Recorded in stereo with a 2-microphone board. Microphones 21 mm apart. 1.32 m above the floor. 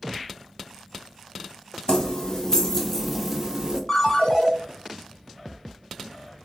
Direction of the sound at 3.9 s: 25° left (ahead or behind).